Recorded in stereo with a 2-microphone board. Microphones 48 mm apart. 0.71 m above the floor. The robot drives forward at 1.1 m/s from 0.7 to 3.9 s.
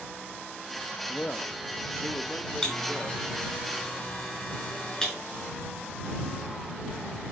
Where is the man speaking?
20° left (ahead or behind), 0.7 m; by 3.6 s 5° left (ahead or behind), 2.5 m.